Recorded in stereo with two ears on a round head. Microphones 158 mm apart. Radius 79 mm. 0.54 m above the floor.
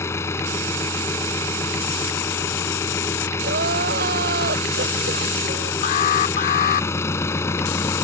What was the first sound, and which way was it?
An engine running, 15° left (ahead or behind).